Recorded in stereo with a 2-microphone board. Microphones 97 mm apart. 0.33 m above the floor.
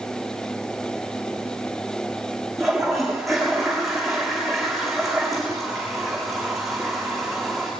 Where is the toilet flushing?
Centre (ahead or behind), 7.5 m.